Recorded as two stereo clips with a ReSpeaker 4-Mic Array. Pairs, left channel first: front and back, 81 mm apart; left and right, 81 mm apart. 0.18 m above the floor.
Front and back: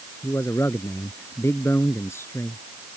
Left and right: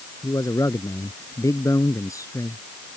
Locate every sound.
0.2 s a man speaking: 50° left